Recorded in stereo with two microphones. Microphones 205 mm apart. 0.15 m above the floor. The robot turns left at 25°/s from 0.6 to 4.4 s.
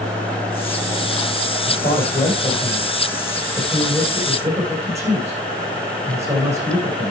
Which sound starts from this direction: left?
A man speaking, at 1.7 s.